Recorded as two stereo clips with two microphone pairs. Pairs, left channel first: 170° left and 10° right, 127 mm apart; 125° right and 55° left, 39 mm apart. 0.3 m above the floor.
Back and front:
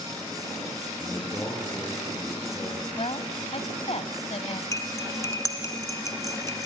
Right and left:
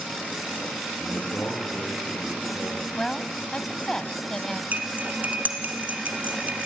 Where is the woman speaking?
170° left, 1.6 m.